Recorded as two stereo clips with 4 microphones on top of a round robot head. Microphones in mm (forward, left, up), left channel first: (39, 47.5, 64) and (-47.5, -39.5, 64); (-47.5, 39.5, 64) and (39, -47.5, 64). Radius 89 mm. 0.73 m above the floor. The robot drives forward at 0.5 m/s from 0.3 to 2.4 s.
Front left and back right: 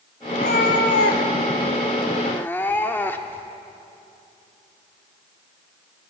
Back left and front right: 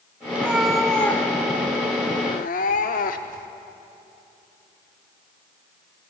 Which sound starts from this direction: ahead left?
A cat meowing, at 0.3 s.